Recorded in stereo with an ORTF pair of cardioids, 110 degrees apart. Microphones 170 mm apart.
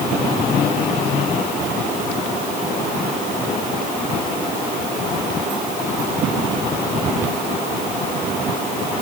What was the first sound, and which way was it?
Only background noise.